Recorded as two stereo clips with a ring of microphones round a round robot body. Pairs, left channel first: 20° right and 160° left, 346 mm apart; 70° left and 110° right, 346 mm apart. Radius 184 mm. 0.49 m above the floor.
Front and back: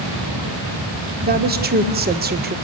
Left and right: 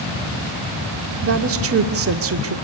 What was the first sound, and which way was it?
A woman speaking, 150° right.